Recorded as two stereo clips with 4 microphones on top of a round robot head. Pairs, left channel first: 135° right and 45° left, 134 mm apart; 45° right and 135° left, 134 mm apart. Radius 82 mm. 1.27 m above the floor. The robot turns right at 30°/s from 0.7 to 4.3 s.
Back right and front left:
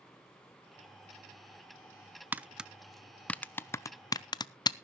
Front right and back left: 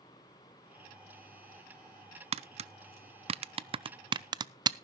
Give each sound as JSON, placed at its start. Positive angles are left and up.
{"t": 2.3, "sound": "tapping", "azimuth_deg": 120, "distance_m": 0.5}